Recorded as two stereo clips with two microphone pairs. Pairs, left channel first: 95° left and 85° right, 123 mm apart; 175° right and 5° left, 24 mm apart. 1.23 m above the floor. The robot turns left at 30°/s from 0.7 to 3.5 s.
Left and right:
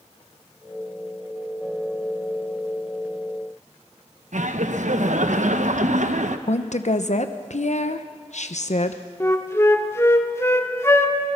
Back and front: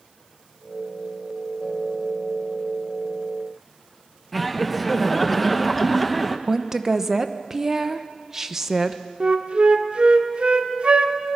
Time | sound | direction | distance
4.3 | laughter | 90° right | 1.1 m
6.5 | a woman speaking | 80° left | 0.9 m
9.2 | a flute | 30° left | 1.2 m